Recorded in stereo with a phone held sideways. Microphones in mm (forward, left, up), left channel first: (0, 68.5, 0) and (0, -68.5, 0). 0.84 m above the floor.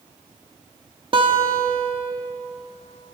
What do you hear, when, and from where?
1.1 s a guitar: 40° right (ahead or behind), 1.2 m